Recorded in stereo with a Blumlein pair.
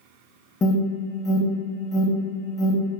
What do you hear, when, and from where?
0.6 s an alarm: 20° left, 0.7 m